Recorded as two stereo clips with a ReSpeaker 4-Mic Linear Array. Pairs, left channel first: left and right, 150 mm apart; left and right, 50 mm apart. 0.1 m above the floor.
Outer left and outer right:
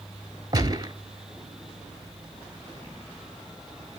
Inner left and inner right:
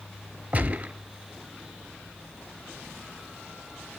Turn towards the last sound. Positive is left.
turn(degrees=-25)  # may be behind; listen again after turning